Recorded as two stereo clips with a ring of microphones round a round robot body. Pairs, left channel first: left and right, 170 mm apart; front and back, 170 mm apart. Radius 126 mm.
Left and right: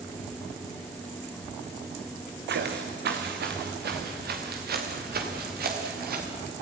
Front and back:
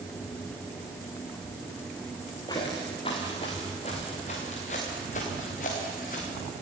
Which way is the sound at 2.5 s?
75° right.